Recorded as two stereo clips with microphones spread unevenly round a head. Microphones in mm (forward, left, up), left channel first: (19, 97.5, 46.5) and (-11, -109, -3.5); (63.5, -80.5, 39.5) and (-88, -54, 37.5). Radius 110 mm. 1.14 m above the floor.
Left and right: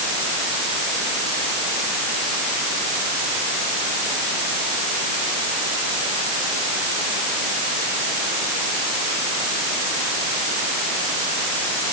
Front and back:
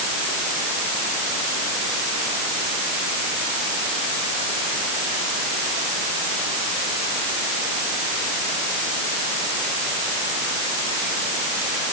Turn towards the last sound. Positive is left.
No sound to turn to.